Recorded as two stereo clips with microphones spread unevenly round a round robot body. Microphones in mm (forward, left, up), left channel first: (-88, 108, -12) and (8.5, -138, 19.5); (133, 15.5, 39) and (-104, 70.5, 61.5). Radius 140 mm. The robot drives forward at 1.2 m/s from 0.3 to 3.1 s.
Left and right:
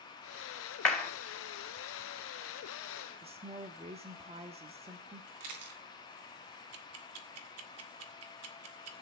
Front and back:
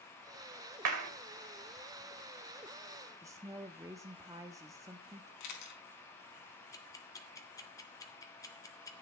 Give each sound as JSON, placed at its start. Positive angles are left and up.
{"t": 0.8, "sound": "a clap", "azimuth_deg": -160, "distance_m": 2.5}
{"t": 3.2, "sound": "a woman speaking", "azimuth_deg": -120, "distance_m": 1.2}
{"t": 5.4, "sound": "a camera shutter", "azimuth_deg": -35, "distance_m": 4.0}
{"t": 6.7, "sound": "ticking", "azimuth_deg": -80, "distance_m": 1.8}